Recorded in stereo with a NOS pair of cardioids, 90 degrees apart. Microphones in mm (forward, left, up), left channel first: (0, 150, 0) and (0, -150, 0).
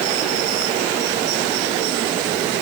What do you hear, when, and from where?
Only background noise.